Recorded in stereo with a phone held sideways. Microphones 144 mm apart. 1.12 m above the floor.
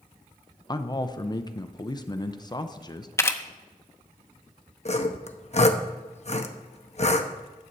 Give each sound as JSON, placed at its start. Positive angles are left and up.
{"t": 0.7, "sound": "a man speaking", "side_deg": 30, "distance_m": 0.6}
{"t": 3.2, "sound": "a camera shutter", "side_deg": 20, "distance_m": 0.6}
{"t": 4.8, "sound": "sawing", "side_deg": 50, "distance_m": 0.7}